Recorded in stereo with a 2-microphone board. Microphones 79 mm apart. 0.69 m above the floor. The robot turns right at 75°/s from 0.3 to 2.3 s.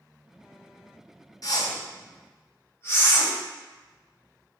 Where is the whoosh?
50° left (ahead or behind), 0.8 m; by 3.3 s 35° left (ahead or behind), 0.8 m.